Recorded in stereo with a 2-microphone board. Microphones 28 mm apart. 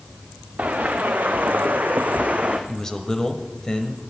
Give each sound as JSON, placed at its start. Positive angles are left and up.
{"t": 0.6, "sound": "footsteps", "side_deg": -60, "distance_m": 1.7}
{"t": 2.7, "sound": "a man speaking", "side_deg": 20, "distance_m": 1.1}